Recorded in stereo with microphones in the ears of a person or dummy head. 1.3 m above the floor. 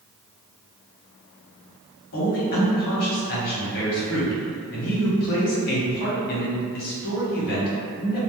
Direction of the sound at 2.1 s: 55° left (ahead or behind).